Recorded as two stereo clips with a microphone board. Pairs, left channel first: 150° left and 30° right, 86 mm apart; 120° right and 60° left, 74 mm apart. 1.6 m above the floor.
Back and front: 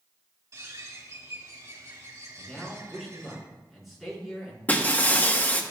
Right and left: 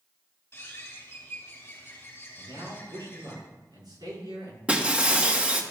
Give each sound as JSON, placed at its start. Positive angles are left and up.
{"t": 0.5, "sound": "a bird", "azimuth_deg": -65, "distance_m": 3.0}
{"t": 2.4, "sound": "a man speaking", "azimuth_deg": 60, "distance_m": 4.5}
{"t": 4.7, "sound": "breaking glass", "azimuth_deg": 110, "distance_m": 1.0}